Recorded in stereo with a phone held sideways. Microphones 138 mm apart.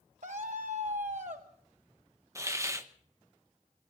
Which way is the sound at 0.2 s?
60° right (ahead or behind).